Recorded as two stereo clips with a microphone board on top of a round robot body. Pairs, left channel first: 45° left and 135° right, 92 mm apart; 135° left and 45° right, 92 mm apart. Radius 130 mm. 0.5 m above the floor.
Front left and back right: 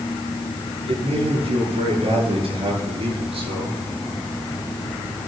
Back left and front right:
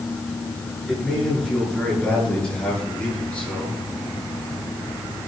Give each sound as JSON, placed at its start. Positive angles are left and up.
{"t": 0.9, "sound": "a man speaking", "azimuth_deg": -145, "distance_m": 8.0}